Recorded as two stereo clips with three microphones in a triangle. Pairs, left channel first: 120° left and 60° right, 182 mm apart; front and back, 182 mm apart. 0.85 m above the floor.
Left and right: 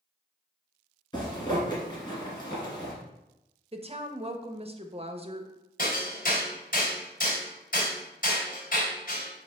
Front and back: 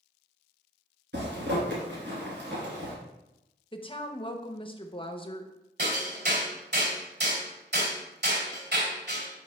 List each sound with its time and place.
1.1 s a zipper: 175° right, 2.5 m
3.7 s a woman speaking: 35° right, 0.7 m
5.8 s hammering: 160° left, 3 m